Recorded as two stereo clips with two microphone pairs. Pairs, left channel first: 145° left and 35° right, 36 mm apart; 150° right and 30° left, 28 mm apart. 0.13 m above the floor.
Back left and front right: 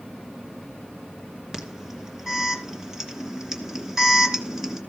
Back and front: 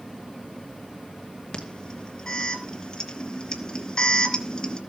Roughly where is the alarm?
Right.